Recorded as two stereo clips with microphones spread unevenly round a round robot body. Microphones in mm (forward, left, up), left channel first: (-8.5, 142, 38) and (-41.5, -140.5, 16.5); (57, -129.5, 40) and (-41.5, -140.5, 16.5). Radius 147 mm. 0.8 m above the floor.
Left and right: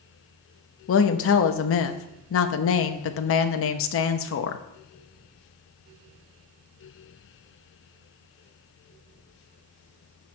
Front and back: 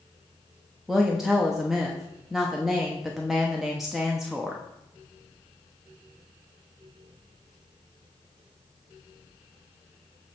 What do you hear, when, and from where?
0.9 s a woman speaking: 110° left, 0.9 m